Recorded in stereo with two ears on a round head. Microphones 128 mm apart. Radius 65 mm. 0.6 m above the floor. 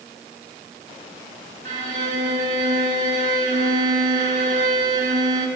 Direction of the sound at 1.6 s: 65° right (ahead or behind).